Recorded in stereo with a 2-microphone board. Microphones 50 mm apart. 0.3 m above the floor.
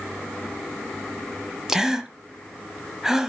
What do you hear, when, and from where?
1.7 s a gasp: 10° right (ahead or behind), 1.2 m